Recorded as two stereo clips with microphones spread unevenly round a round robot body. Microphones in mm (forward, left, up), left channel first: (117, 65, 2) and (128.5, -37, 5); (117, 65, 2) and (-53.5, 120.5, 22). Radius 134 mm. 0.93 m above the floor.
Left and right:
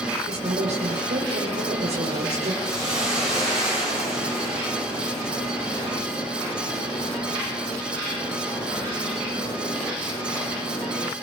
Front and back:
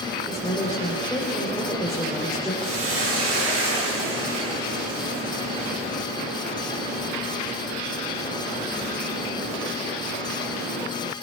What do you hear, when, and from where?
0.3 s a woman speaking: 105° right, 3.5 m
2.6 s a hiss: 175° left, 9.5 m